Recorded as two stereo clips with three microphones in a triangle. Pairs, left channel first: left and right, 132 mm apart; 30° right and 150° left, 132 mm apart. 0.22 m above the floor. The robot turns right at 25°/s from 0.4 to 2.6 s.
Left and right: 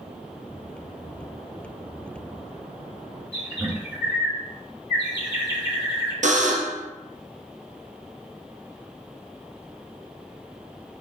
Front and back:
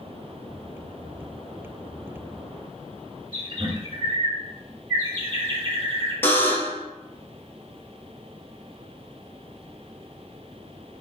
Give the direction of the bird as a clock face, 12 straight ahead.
5 o'clock.